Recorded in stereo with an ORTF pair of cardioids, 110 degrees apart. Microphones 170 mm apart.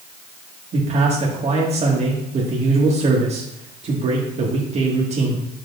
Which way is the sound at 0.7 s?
40° right.